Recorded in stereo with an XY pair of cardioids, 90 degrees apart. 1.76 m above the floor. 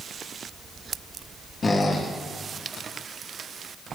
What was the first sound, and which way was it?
A squeak, 45° left.